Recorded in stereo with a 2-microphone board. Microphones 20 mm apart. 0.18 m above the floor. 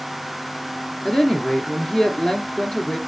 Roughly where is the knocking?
I don't hear knocking.